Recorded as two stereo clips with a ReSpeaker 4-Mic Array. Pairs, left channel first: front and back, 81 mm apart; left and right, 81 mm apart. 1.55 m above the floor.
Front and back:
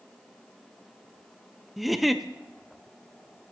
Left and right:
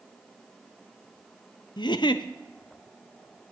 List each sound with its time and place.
1.8 s a giggle: 90° left, 0.5 m